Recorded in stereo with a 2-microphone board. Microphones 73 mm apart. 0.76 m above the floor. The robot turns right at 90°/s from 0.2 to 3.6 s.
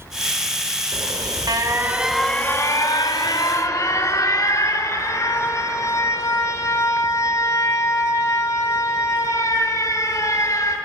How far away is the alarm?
About 1.6 m.